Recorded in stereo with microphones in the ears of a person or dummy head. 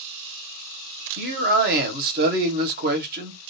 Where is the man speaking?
55° right (ahead or behind), 0.7 m.